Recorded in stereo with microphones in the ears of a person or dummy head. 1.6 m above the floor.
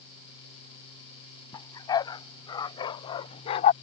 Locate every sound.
1.5 s a dog barking: 30° left (ahead or behind)